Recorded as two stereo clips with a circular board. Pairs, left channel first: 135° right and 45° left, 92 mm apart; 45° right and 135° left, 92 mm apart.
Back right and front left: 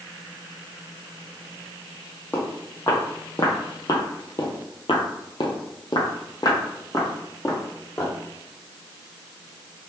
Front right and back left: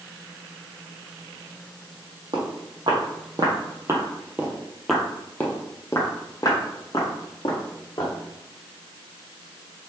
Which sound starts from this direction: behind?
Footsteps, at 2.3 s.